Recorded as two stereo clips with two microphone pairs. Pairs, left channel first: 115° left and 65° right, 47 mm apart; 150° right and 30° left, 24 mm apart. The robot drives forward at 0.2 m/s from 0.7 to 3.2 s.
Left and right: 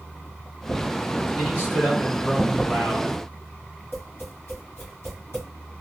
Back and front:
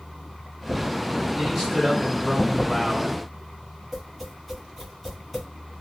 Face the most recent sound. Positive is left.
turn(degrees=120)